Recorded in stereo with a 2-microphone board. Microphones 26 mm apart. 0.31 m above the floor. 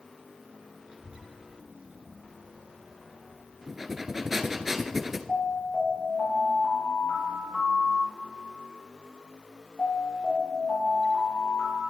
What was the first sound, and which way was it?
A child speaking, 70° right (ahead or behind).